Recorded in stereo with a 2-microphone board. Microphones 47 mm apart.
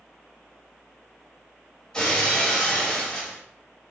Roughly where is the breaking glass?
Centre.